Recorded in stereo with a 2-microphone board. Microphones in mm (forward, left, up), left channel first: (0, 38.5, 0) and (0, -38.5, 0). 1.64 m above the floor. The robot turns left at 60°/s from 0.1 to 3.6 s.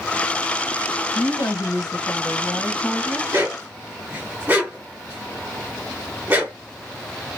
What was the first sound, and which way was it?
A woman speaking, 110° left.